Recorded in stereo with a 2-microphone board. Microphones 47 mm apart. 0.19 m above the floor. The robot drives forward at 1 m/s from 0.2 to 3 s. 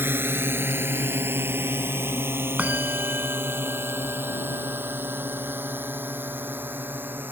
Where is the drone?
60° right (ahead or behind); by 7.3 s 50° right (ahead or behind).